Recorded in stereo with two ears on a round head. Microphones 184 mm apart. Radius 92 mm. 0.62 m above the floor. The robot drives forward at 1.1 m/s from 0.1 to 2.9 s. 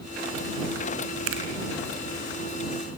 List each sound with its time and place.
1.3 s a finger snap: 75° right (ahead or behind), 5 m